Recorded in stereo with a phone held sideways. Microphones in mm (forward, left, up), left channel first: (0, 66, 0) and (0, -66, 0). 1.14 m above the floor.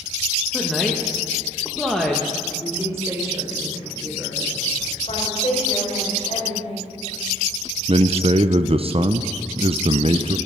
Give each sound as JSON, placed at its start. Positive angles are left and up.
{"t": 0.5, "sound": "a woman speaking", "side_deg": 0, "distance_m": 1.3}
{"t": 2.5, "sound": "a woman speaking", "side_deg": -20, "distance_m": 3.5}
{"t": 5.1, "sound": "a woman speaking", "side_deg": 55, "distance_m": 4.5}
{"t": 7.9, "sound": "a man speaking", "side_deg": -45, "distance_m": 0.5}